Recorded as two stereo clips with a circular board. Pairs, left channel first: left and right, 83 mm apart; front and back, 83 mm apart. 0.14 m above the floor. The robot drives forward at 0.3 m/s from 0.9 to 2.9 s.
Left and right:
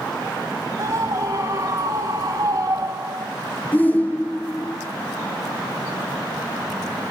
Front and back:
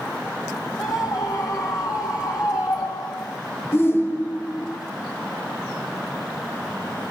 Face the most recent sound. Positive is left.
turn(degrees=35)